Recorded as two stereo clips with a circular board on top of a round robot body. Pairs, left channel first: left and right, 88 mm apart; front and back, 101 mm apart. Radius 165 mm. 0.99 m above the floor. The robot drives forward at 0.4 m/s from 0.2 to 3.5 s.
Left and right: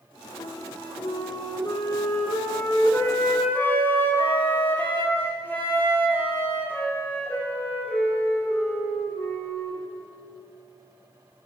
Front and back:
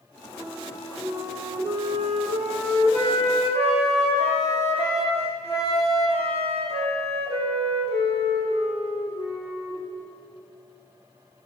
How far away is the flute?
About 0.9 m.